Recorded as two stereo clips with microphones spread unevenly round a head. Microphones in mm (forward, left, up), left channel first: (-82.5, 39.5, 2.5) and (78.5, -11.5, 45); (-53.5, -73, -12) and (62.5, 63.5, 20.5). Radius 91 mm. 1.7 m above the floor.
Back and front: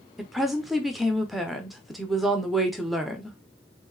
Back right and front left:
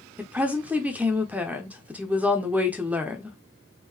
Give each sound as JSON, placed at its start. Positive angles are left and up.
{"t": 0.2, "sound": "a woman speaking", "azimuth_deg": 25, "distance_m": 0.6}